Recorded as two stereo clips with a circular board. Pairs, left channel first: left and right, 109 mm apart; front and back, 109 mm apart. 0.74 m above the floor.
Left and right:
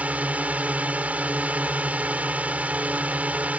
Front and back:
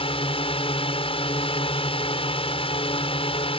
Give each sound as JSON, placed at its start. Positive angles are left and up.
{"t": 0.0, "sound": "a drone", "azimuth_deg": -15}